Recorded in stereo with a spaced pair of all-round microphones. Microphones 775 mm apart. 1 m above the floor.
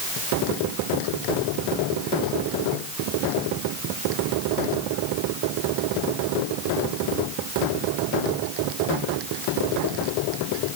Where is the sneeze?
I don't hear a sneeze.